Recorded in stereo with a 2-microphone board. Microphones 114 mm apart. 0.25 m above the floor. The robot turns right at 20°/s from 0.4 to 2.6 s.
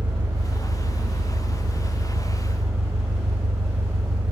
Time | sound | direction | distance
0.0 | an engine running | 140° right | 1.8 m